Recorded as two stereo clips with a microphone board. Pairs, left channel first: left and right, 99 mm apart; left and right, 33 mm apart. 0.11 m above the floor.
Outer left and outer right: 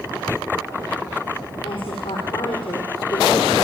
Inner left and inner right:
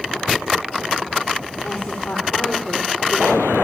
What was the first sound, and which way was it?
A woman speaking, 60° left (ahead or behind).